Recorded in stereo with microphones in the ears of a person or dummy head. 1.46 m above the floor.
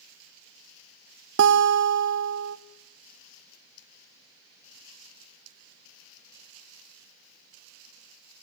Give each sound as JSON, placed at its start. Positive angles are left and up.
{"t": 1.4, "sound": "a guitar", "side_deg": -65, "distance_m": 1.0}